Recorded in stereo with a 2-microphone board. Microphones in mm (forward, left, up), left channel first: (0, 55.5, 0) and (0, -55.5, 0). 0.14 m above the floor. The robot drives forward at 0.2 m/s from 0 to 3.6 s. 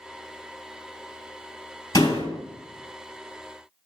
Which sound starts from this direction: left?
A door slam, at 1.9 s.